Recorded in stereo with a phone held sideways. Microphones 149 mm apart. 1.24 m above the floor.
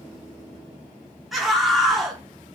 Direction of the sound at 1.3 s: Centre (ahead or behind).